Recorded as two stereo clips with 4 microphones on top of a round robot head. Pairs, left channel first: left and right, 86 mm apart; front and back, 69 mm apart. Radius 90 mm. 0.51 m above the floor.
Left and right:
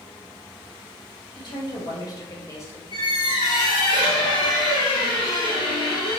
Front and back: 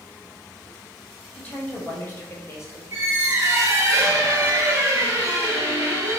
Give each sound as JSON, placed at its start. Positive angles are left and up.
{"t": 1.4, "sound": "a woman speaking", "azimuth_deg": 65, "distance_m": 2.0}
{"t": 2.9, "sound": "a squeak", "azimuth_deg": 135, "distance_m": 0.9}